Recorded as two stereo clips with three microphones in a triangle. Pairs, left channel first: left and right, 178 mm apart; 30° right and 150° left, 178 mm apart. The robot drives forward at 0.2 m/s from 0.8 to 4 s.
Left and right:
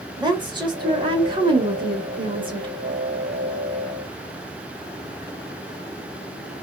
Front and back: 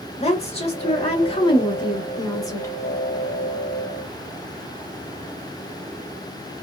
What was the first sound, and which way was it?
A woman speaking, 45° right.